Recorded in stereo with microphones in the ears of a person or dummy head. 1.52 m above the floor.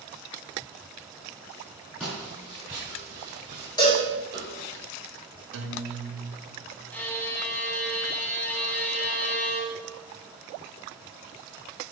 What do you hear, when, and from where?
2.0 s footsteps: centre (ahead or behind), 2.5 m; by 4.8 s 30° right (ahead or behind), 2.5 m
3.8 s a cowbell: 25° left (ahead or behind), 1.9 m
5.5 s a guitar: 70° right (ahead or behind), 1.0 m
6.9 s a violin: 10° left (ahead or behind), 0.8 m